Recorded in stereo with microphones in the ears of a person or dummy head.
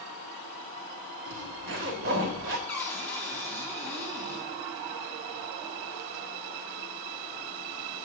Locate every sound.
1.3 s a zipper: 45° right (ahead or behind), 1.3 m
2.7 s a cupboard door: 20° left (ahead or behind), 2 m